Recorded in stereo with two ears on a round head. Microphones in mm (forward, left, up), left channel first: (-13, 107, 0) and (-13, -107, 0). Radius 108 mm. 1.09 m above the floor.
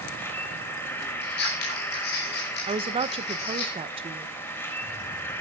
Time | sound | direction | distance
0.0 | an insect | 10° left (ahead or behind) | 3 m
1.2 | scissors | 45° left (ahead or behind) | 4.5 m
2.7 | a woman speaking | 25° right (ahead or behind) | 0.9 m